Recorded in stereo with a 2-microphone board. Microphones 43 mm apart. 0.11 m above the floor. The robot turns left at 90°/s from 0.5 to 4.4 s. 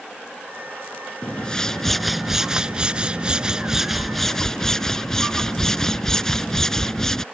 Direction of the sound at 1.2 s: 25° left (ahead or behind).